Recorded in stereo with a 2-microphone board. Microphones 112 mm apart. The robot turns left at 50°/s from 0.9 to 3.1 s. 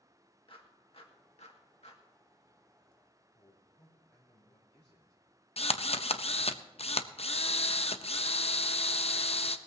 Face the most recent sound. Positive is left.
turn(degrees=65)  # may be behind; listen again after turning